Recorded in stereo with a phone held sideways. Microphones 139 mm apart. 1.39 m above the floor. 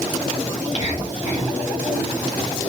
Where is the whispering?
60° left (ahead or behind), 1.5 m.